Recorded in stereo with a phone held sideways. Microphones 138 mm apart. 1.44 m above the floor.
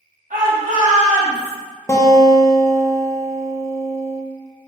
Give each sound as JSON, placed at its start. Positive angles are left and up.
{"t": 0.3, "sound": "a shout", "side_deg": -75, "distance_m": 1.8}
{"t": 1.9, "sound": "a guitar", "side_deg": 20, "distance_m": 0.7}